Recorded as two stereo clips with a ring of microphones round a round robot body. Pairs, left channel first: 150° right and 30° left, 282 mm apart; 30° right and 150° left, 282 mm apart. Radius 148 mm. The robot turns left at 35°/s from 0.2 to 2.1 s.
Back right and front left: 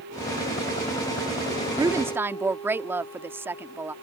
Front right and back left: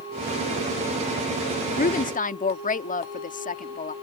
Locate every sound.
1.8 s a woman speaking: 30° right; by 3.9 s 45° right